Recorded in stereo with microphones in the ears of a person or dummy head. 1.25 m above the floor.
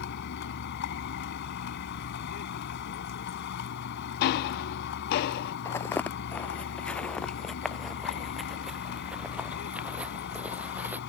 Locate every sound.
0.0 s a vehicle: 60° left (ahead or behind)
4.2 s ticking: 60° left (ahead or behind)
5.7 s footsteps: 20° left (ahead or behind); by 11.0 s 10° right (ahead or behind)